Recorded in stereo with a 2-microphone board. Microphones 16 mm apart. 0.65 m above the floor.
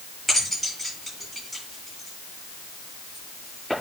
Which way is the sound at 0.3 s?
5° left (ahead or behind).